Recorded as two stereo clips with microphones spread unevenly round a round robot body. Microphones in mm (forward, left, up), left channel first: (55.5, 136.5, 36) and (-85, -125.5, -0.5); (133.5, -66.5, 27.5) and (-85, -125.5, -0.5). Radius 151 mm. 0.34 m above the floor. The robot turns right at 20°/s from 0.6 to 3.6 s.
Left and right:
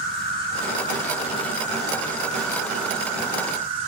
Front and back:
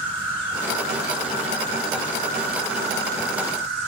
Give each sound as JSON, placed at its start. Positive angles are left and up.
{"t": 0.0, "sound": "an insect", "azimuth_deg": 120, "distance_m": 2.5}